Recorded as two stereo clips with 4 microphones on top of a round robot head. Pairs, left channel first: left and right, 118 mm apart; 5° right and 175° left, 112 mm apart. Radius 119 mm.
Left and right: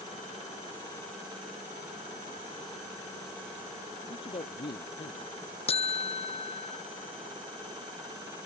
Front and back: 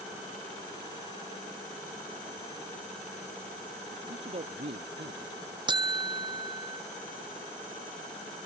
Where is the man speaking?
140° left; by 5.5 s 130° left.